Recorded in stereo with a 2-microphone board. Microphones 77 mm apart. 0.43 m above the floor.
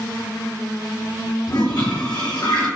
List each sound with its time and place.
1.5 s a toilet flushing: 75° left (ahead or behind), 1.5 m